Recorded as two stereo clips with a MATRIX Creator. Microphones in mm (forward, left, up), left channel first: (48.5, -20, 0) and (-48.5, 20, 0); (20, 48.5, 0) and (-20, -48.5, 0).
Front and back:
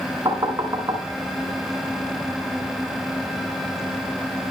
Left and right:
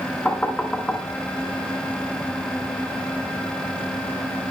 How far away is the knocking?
About 1.5 m.